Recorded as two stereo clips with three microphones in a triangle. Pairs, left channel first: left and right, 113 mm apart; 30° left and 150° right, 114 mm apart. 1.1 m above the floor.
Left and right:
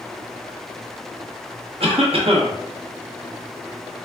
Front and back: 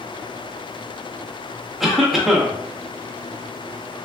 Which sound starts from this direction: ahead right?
A cough, at 1.8 s.